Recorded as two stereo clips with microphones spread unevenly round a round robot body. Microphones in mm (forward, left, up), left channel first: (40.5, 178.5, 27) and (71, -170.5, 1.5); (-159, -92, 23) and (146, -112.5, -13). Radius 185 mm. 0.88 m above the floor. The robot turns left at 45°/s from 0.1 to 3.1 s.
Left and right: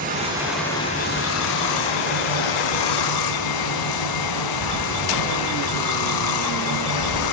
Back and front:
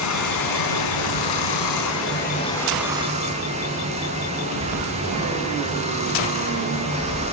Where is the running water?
155° right, 5 m; by 7.3 s 70° left, 5 m.